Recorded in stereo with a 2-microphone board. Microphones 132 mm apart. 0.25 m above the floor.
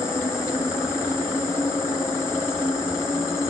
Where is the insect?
20° left (ahead or behind), 5.5 m.